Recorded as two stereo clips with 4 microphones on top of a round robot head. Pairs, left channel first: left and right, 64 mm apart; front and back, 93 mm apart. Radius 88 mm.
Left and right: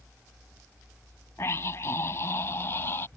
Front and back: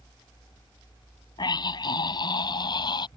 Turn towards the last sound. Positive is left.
turn(degrees=30)